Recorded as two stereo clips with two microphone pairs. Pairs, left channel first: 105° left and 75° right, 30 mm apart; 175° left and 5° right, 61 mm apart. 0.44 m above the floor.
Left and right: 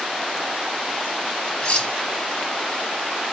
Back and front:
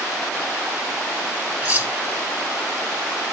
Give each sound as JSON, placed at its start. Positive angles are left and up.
{"t": 1.6, "sound": "cutlery clinking", "azimuth_deg": 60, "distance_m": 2.0}